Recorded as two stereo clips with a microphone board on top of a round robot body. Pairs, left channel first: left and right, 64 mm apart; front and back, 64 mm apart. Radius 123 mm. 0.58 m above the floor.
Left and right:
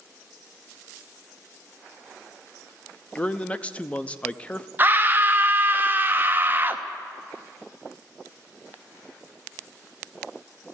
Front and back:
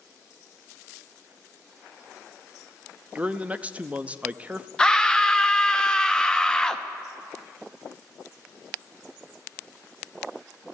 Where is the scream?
70° right, 0.9 m.